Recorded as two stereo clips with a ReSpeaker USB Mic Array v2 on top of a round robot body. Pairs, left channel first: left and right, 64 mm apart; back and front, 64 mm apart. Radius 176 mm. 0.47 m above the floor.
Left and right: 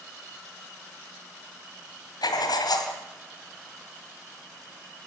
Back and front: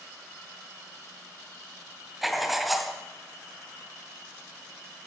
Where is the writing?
90° left, 2 m.